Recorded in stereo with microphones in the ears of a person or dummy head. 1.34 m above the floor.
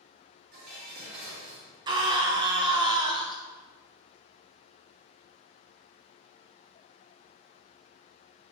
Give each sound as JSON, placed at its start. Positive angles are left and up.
{"t": 0.5, "sound": "dishes clattering", "side_deg": -50, "distance_m": 2.0}
{"t": 1.9, "sound": "a scream", "side_deg": -25, "distance_m": 0.8}